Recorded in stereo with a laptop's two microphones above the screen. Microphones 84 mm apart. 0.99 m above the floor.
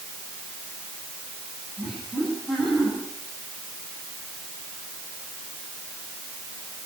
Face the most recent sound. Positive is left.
turn(degrees=5)  # may be behind; listen again after turning